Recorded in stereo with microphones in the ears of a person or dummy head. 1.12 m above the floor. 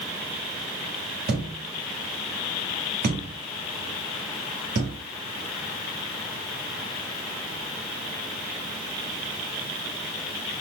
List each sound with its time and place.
1.3 s a thud: 40° right (ahead or behind), 1.0 m